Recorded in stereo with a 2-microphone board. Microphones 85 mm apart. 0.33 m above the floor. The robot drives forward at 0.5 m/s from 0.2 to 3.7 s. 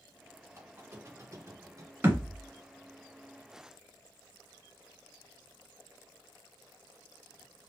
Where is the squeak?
25° right (ahead or behind), 1.5 m; by 1.9 s 40° right (ahead or behind), 1.0 m.